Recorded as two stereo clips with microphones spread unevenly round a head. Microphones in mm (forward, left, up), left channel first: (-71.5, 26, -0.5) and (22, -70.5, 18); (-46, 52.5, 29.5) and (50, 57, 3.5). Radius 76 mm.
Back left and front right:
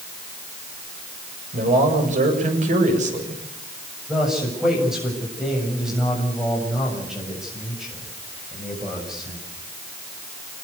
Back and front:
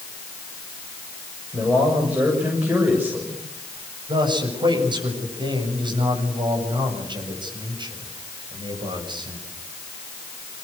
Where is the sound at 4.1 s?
40° left, 7 m.